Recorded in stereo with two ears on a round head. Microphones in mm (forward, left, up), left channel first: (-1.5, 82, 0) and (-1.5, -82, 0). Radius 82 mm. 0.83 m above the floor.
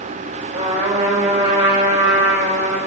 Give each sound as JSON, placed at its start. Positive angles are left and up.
{"t": 0.5, "sound": "a trumpet", "side_deg": -35, "distance_m": 3.0}